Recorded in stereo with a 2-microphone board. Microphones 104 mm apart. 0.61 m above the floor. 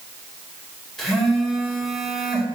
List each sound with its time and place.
1.0 s a phone buzzing: 5° left (ahead or behind), 1.9 m